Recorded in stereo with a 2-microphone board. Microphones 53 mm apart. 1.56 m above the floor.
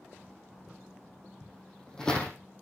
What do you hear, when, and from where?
1.4 s footsteps: 15° left (ahead or behind), 2.5 m